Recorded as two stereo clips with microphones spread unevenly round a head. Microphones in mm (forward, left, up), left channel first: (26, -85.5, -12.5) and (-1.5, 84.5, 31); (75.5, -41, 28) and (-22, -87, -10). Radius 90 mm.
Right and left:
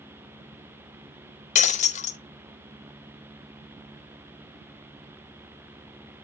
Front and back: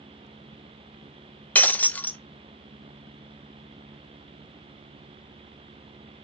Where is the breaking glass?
25° right, 0.8 m.